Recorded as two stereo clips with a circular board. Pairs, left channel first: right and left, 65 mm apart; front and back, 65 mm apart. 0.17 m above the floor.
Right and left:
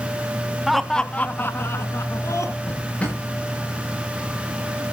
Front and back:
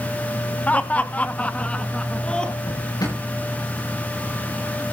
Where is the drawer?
20° right, 9.5 m.